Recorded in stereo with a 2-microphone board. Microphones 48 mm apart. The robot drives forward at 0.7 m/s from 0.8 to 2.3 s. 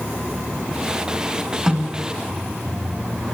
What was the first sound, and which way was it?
A snare drum, 10° right (ahead or behind).